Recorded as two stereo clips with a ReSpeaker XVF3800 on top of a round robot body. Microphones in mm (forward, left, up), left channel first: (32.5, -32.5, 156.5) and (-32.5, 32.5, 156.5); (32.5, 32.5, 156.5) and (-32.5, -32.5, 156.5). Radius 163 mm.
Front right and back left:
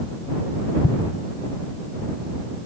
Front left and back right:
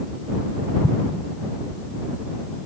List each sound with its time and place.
0.8 s an explosion: 15° right